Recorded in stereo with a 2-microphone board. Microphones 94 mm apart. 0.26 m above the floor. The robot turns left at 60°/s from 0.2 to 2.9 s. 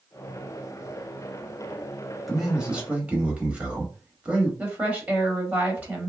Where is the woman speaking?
15° right (ahead or behind), 0.9 m.